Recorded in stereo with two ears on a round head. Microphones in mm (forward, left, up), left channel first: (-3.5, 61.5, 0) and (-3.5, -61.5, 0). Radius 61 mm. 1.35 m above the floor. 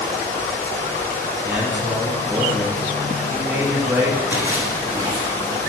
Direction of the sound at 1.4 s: 20° right (ahead or behind).